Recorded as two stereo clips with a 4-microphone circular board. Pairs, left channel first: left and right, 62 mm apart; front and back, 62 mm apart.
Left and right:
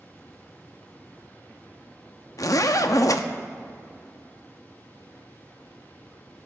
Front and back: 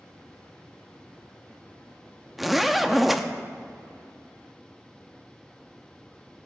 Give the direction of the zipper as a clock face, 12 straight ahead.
9 o'clock.